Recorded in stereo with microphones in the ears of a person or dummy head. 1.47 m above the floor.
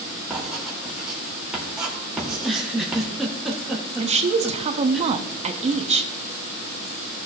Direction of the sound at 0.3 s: 5° right (ahead or behind).